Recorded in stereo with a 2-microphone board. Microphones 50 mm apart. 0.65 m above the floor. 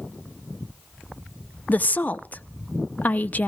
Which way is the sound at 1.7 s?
35° left (ahead or behind).